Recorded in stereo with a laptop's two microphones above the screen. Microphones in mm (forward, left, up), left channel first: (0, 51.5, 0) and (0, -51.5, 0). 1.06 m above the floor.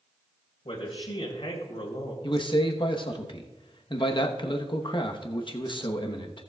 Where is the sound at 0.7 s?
65° left (ahead or behind), 2 m.